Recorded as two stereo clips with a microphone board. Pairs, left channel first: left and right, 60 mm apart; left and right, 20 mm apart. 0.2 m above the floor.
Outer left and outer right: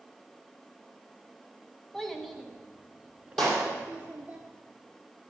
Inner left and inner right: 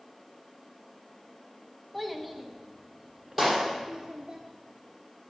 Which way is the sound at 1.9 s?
5° left (ahead or behind).